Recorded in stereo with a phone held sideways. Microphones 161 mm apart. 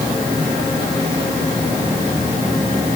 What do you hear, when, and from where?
Only background noise.